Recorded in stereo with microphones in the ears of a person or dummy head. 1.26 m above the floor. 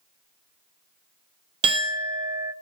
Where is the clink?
30° right (ahead or behind), 0.8 m.